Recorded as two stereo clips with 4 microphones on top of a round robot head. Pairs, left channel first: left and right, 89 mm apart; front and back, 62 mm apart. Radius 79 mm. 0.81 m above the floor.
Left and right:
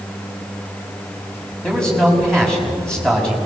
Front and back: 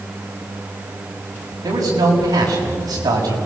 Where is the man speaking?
170° left, 6 m.